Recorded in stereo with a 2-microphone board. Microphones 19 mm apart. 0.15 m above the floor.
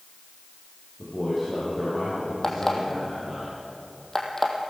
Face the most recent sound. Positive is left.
turn(degrees=25)  # may be behind; listen again after turning